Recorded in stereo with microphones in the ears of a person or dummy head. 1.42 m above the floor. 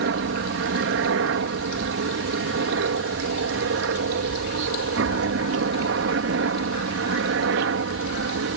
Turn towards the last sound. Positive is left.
turn(degrees=-60)  # may be behind; listen again after turning